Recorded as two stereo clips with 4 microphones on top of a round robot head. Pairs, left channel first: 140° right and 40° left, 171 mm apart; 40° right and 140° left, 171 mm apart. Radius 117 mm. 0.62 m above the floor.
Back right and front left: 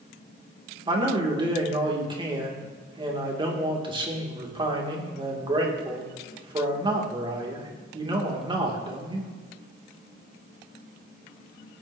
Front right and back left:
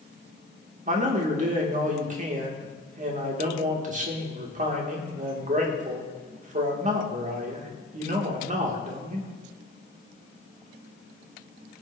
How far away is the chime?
I don't hear a chime.